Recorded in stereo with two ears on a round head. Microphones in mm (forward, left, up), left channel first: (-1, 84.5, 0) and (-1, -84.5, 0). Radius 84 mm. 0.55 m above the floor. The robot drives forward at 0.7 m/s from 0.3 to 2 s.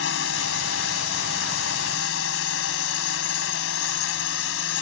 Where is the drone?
70° left (ahead or behind).